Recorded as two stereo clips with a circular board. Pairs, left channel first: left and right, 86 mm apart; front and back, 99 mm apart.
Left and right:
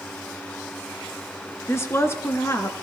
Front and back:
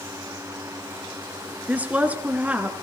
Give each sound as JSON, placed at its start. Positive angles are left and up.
{"t": 1.7, "sound": "a woman speaking", "azimuth_deg": 115, "distance_m": 1.7}